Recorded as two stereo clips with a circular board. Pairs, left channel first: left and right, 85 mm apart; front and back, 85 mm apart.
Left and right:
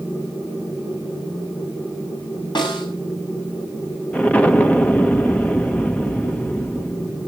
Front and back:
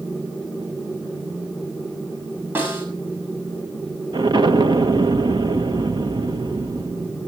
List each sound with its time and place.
2.5 s a snare drum: 115° left, 6.5 m
4.1 s an explosion: 160° left, 1.5 m